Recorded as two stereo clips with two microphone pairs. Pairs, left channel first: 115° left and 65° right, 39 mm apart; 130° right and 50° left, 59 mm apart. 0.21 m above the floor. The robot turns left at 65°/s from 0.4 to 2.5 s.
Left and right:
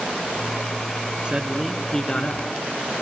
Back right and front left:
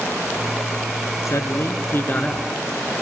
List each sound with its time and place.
1.2 s a man speaking: 125° right, 2 m; by 2.5 s 155° left, 2 m